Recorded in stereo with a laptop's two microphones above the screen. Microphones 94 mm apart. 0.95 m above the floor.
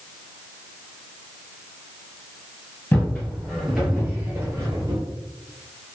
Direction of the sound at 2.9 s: 20° left (ahead or behind).